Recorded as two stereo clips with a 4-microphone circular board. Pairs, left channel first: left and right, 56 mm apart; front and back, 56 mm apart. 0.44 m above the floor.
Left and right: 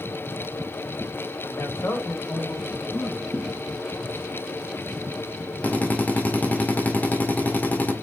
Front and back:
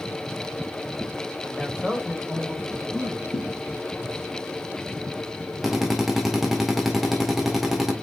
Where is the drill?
95° left, 1.5 m.